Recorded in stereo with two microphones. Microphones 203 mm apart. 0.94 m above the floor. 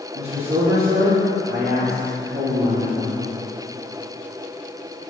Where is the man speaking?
50° right (ahead or behind), 2 m.